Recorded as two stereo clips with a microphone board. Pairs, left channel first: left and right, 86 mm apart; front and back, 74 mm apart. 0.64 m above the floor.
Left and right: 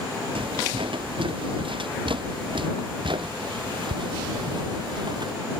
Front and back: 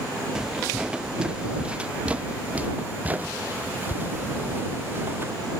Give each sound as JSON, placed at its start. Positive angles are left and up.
{"t": 0.3, "sound": "footsteps", "azimuth_deg": -100}